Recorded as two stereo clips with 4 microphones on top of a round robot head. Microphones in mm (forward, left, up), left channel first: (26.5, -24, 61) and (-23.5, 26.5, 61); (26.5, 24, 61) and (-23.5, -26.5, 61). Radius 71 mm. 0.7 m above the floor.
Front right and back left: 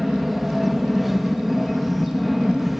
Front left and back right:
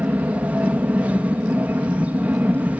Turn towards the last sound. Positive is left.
turn(degrees=-140)